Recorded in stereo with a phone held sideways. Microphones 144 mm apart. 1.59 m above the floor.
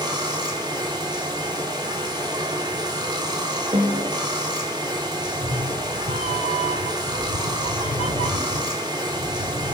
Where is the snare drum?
40° right (ahead or behind), 2.5 m.